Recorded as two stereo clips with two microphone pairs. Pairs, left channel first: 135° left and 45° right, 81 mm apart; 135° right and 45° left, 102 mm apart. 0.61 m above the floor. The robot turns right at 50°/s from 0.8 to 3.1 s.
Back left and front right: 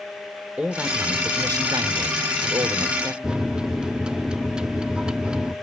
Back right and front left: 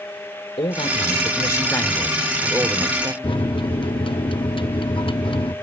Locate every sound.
0.6 s a man speaking: 115° right, 1.5 m; by 3.1 s straight ahead, 1.5 m
3.2 s a microwave: 120° right, 0.6 m